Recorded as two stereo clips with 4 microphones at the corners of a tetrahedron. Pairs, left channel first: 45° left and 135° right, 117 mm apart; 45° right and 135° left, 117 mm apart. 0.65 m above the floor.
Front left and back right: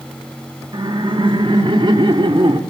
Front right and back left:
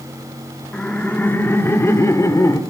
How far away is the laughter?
About 1.3 m.